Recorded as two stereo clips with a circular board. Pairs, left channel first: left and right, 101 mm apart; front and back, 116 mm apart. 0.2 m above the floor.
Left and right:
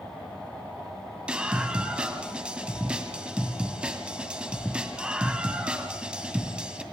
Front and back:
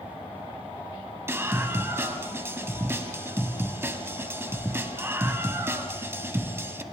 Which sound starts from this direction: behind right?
A scream, at 1.3 s.